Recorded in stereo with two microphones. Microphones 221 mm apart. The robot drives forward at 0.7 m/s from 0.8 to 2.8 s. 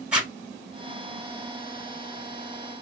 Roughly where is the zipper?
Centre.